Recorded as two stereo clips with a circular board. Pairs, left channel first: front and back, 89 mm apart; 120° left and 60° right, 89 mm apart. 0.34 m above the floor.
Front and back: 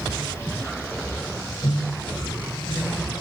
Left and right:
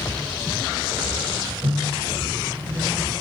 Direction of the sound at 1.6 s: 40° right.